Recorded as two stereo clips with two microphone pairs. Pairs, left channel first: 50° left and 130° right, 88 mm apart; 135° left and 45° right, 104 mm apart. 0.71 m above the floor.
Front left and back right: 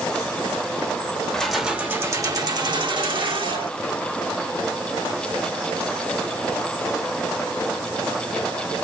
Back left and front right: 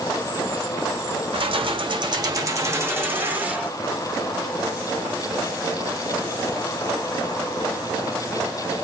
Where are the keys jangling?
30° right, 0.8 m; by 3.7 s 120° right, 1.8 m.